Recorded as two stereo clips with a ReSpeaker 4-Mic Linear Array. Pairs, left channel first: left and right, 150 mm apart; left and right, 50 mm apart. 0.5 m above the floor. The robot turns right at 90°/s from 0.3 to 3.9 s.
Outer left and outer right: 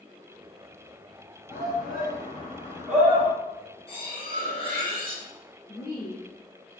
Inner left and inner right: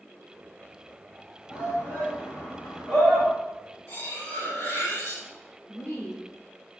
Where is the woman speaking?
55° left (ahead or behind), 1.1 m.